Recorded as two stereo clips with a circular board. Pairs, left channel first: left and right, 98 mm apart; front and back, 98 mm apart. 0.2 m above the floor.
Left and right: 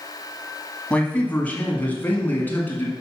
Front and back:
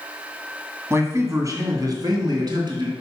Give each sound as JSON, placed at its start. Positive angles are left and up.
{"t": 0.9, "sound": "a man speaking", "azimuth_deg": 155, "distance_m": 1.7}